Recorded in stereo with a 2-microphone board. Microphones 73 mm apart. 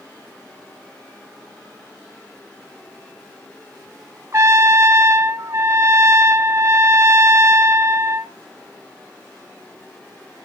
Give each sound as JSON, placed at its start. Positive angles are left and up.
{"t": 4.3, "sound": "a trumpet", "side_deg": -40, "distance_m": 1.4}